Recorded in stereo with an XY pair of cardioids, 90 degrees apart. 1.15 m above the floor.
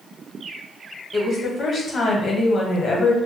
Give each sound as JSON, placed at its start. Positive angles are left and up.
{"t": 1.1, "sound": "a woman speaking", "azimuth_deg": 55, "distance_m": 1.0}